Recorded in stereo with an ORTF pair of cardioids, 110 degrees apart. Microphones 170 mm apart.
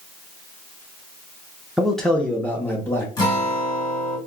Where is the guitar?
25° left, 1.8 m.